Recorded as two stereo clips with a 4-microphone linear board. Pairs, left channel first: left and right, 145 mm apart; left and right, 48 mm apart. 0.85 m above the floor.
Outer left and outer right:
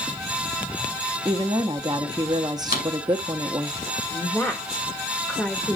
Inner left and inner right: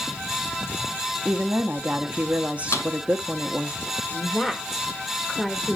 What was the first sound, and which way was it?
A woman speaking, 25° right (ahead or behind).